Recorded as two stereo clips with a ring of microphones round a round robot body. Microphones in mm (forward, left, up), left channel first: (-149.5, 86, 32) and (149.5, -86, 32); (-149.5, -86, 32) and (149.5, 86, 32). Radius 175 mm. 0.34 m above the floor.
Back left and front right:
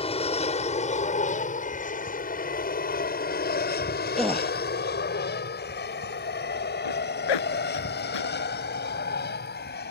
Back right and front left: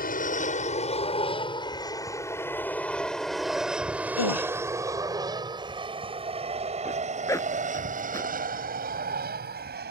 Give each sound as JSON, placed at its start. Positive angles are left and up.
{"t": 0.0, "sound": "an aircraft", "azimuth_deg": -165}
{"t": 4.2, "sound": "a gasp", "azimuth_deg": -120}
{"t": 6.8, "sound": "a zipper", "azimuth_deg": 130}